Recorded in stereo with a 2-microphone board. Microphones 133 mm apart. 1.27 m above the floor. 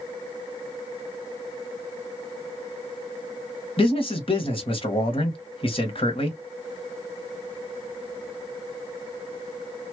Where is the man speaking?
40° left (ahead or behind), 1.5 m.